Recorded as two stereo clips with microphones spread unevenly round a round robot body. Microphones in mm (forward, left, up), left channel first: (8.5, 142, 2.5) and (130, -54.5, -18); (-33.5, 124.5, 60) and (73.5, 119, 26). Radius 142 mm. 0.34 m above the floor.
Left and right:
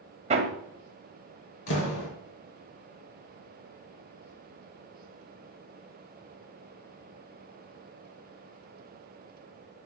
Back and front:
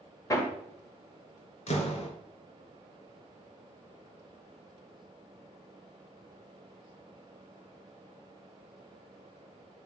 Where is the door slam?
155° left, 4 m.